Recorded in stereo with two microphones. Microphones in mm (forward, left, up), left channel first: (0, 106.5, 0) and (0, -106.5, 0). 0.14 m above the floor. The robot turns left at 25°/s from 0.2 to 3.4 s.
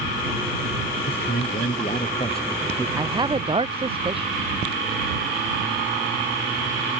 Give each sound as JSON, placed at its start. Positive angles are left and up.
{"t": 1.1, "sound": "a man speaking", "azimuth_deg": 60}
{"t": 3.0, "sound": "a man speaking", "side_deg": -15}